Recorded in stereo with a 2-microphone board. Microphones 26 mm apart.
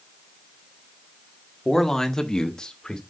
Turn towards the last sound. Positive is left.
turn(degrees=30)  # may be behind; listen again after turning